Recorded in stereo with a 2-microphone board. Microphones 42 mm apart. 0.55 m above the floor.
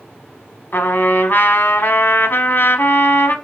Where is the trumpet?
55° left (ahead or behind), 0.8 m.